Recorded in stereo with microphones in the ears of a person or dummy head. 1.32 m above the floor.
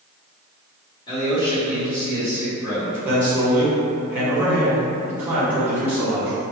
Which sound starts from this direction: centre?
A man speaking, at 3.0 s.